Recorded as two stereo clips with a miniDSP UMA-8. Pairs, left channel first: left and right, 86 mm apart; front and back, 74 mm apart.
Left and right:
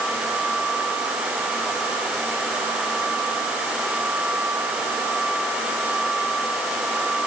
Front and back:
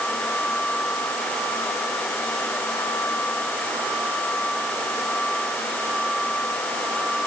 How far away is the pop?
I don't hear a pop.